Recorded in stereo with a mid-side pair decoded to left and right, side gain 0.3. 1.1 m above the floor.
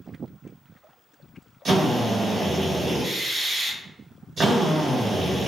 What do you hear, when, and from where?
1.6 s a drill: 70° right, 1.2 m